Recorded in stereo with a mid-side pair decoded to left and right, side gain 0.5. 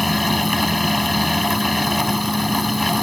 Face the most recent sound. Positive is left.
turn(degrees=5)